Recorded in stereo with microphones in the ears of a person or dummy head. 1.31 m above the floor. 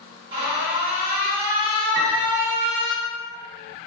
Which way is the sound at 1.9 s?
85° right.